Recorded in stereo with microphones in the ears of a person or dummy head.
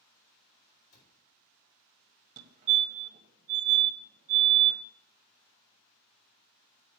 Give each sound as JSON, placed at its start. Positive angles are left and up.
{"t": 0.9, "sound": "a cupboard door", "side_deg": 70, "distance_m": 3.5}
{"t": 2.4, "sound": "a fire alarm", "side_deg": -35, "distance_m": 1.2}